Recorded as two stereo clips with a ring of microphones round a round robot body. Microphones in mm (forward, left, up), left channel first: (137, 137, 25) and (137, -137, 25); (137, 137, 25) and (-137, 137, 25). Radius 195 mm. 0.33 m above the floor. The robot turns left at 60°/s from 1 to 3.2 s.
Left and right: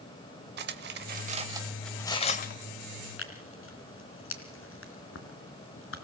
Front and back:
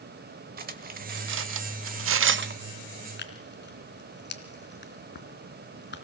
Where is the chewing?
No chewing in this recording.